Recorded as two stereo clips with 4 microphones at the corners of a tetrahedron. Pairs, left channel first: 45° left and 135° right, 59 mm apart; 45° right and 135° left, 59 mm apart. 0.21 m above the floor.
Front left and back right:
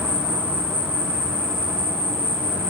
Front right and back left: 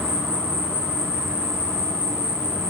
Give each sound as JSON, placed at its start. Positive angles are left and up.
{"t": 0.0, "sound": "an insect", "azimuth_deg": -165, "distance_m": 1.8}